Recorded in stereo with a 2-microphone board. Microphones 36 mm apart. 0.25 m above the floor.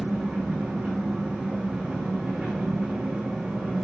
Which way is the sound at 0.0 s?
25° right (ahead or behind).